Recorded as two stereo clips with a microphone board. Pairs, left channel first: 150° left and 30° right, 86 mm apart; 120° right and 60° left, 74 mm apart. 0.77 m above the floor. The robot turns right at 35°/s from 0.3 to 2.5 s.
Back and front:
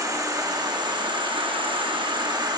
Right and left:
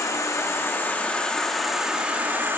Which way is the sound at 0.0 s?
75° right.